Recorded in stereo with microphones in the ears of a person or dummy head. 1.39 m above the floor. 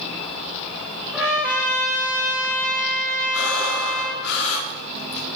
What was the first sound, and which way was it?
A trumpet, 5° right (ahead or behind).